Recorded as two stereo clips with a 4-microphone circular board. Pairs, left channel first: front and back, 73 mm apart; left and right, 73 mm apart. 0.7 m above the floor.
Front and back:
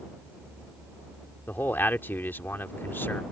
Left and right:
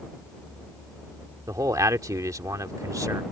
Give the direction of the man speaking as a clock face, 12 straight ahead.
2 o'clock.